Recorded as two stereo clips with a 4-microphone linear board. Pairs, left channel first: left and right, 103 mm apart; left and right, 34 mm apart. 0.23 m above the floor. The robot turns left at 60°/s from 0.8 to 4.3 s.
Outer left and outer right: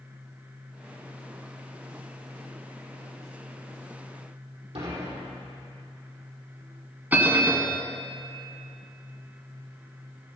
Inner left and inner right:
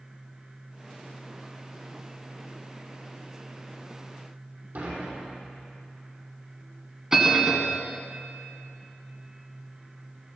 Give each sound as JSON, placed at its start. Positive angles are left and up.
{"t": 4.8, "sound": "dishes clattering", "side_deg": -70, "distance_m": 5.0}
{"t": 7.1, "sound": "a bell", "side_deg": -15, "distance_m": 1.2}